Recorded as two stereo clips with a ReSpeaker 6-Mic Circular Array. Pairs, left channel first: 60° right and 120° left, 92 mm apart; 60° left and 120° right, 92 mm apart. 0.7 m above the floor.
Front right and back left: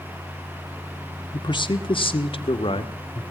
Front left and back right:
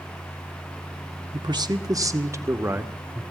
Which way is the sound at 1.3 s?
90° right.